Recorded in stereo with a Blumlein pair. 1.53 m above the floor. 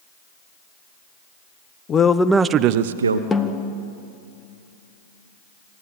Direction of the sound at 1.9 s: 25° left.